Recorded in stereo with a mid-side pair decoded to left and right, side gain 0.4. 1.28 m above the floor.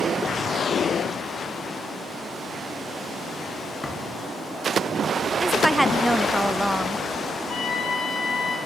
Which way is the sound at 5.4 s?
10° right.